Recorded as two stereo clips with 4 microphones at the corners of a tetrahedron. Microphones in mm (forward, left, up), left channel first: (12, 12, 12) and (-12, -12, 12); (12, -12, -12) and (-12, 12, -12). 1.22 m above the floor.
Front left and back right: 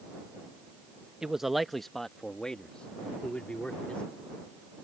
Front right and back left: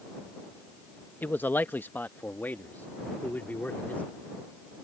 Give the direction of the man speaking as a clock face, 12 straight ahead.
2 o'clock.